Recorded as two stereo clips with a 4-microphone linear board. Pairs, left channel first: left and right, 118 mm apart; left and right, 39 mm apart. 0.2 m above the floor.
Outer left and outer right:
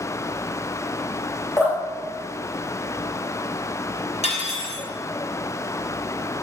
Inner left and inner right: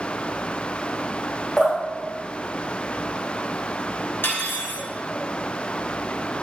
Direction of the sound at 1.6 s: 25° left (ahead or behind).